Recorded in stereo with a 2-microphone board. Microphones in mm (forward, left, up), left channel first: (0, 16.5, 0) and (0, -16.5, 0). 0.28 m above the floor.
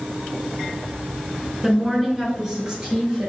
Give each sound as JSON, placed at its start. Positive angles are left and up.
{"t": 1.6, "sound": "a woman speaking", "side_deg": -5, "distance_m": 3.0}